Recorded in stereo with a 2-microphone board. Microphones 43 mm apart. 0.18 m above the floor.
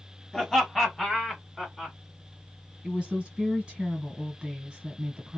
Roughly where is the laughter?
Centre.